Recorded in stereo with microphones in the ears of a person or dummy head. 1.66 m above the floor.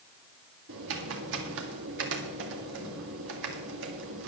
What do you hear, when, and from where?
0.7 s typing on a keyboard: 65° right (ahead or behind), 1.8 m